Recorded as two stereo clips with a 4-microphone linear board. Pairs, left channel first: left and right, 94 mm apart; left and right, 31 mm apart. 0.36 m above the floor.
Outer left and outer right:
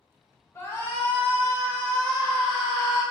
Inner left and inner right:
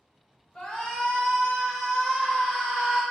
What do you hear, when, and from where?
0.6 s a shout: 25° left (ahead or behind), 0.9 m; by 3.0 s centre (ahead or behind), 1.8 m